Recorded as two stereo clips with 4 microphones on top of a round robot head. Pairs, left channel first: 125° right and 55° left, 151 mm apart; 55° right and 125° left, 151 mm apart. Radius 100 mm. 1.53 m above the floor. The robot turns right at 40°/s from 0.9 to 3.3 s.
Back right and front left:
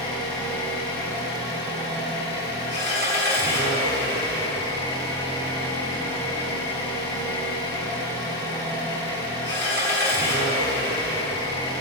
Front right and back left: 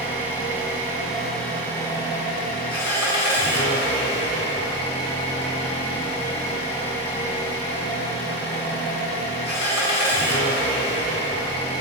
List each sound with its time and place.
0.0 s an engine running: 160° right, 2.0 m; by 11.8 s 60° right, 2.0 m